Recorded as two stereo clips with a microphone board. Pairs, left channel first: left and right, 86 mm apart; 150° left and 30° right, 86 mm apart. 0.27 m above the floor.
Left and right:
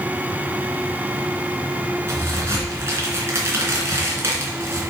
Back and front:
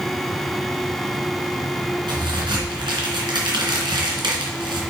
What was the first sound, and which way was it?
A crack, 35° right.